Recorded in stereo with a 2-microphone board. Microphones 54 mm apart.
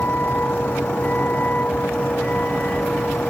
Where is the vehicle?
35° left (ahead or behind); by 3.3 s 25° left (ahead or behind).